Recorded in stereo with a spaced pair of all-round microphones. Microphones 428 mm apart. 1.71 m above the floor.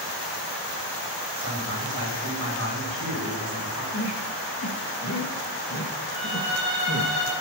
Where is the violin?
45° left (ahead or behind), 9 m.